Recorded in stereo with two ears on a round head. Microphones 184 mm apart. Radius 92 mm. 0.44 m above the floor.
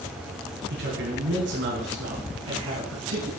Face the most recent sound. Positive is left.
turn(degrees=-70)  # may be behind; listen again after turning